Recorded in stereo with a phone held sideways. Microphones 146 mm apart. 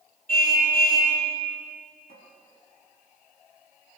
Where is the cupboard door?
75° left (ahead or behind), 5.5 m.